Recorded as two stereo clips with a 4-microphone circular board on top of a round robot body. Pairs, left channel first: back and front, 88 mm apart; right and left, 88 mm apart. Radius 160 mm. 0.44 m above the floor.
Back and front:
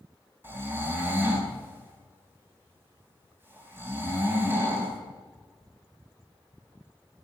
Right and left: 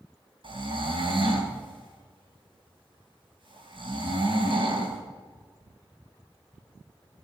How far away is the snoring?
About 3.5 m.